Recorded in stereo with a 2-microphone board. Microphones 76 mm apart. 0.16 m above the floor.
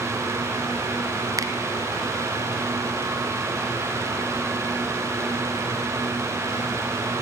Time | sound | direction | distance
1.4 | a finger snap | 50° right (ahead or behind) | 1.3 m